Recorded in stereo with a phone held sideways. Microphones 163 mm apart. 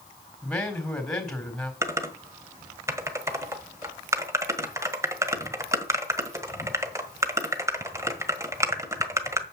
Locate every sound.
0.4 s a man speaking: 5° left (ahead or behind), 4 m
1.8 s typing on a keyboard: 20° right (ahead or behind), 1.5 m